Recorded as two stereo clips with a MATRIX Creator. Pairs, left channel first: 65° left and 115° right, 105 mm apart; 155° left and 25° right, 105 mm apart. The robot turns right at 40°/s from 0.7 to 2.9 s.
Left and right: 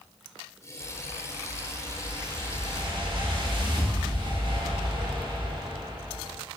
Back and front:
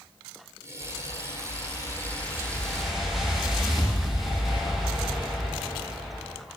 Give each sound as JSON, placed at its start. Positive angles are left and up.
{"t": 0.8, "sound": "a whoosh", "azimuth_deg": 170, "distance_m": 0.6}